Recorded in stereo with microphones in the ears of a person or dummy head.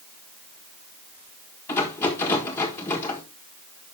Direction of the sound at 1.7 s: 10° left (ahead or behind).